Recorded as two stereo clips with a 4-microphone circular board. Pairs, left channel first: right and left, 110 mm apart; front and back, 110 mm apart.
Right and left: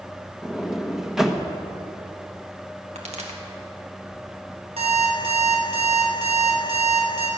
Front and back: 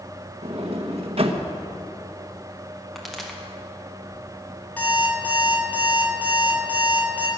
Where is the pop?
90° left, 2 m.